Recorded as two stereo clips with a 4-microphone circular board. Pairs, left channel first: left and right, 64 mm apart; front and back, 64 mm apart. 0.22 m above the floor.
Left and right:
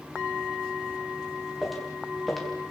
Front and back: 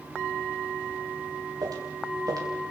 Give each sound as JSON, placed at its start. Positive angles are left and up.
{"t": 1.6, "sound": "footsteps", "azimuth_deg": 180, "distance_m": 6.0}